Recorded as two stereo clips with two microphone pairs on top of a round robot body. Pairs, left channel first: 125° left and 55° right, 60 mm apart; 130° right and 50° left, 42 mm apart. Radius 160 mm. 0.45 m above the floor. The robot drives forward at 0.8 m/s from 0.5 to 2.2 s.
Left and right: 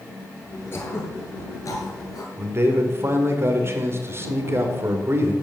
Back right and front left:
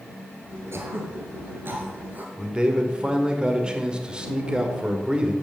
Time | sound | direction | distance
0.7 | throat clearing | 70° left | 2.5 m
2.4 | a man speaking | 15° right | 2.5 m